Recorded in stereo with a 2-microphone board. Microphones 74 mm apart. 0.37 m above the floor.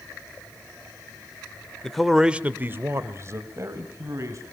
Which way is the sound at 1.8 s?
5° left (ahead or behind).